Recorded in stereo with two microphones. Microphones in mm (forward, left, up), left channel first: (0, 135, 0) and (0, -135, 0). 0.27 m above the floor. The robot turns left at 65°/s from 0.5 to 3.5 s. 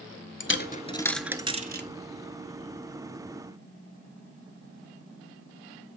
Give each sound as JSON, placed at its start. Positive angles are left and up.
{"t": 0.4, "sound": "a dropped coin", "side_deg": 45, "distance_m": 0.7}